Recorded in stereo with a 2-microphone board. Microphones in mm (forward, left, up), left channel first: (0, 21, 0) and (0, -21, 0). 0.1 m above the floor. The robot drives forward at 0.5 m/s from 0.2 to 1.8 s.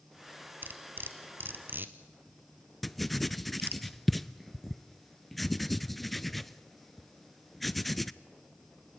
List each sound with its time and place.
0.6 s cutlery clinking: 55° right (ahead or behind), 1.5 m
2.8 s writing: centre (ahead or behind), 0.6 m